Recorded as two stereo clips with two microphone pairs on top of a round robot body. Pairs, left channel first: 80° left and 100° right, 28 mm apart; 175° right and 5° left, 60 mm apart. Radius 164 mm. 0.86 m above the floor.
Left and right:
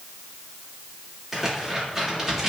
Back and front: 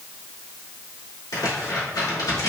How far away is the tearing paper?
About 2.5 m.